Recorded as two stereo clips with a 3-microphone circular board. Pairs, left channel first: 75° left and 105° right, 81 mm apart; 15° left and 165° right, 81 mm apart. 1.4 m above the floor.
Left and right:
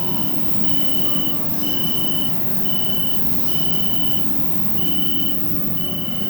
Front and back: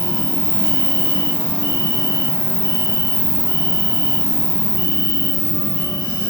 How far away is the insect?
About 3.5 m.